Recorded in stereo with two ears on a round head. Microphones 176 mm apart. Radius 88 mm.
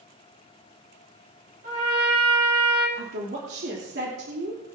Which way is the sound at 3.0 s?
60° right (ahead or behind).